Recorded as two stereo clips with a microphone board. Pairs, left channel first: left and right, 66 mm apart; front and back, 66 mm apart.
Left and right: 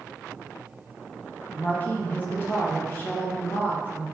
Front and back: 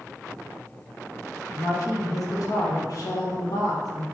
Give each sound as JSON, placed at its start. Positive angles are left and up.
{"t": 1.5, "sound": "a woman speaking", "azimuth_deg": 25, "distance_m": 1.1}